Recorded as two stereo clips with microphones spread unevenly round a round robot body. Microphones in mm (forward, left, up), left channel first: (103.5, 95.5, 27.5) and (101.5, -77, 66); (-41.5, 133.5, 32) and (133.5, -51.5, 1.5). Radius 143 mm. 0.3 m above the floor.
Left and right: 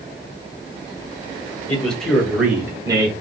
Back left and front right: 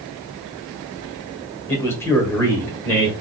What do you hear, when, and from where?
1.7 s a man speaking: 50° left, 1.4 m; by 3.2 s 140° right, 1.3 m